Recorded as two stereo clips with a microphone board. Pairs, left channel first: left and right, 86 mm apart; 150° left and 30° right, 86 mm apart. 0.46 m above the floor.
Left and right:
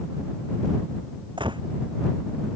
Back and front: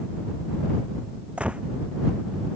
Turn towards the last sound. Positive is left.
turn(degrees=-105)